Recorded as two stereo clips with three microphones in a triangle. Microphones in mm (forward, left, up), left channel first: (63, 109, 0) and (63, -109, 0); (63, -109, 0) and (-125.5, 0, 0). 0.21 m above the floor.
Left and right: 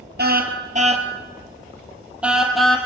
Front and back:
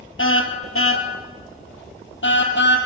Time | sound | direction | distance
0.2 | a car horn | 50° right | 2 m